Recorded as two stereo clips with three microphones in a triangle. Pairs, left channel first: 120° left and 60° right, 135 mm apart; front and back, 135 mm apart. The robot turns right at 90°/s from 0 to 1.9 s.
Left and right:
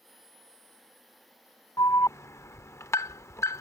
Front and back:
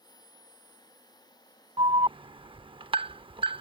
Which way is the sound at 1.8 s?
165° left.